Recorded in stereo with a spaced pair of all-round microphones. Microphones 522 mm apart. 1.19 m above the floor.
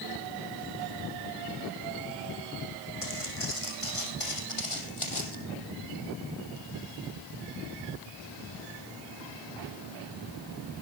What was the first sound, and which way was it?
Footsteps, 75° left (ahead or behind).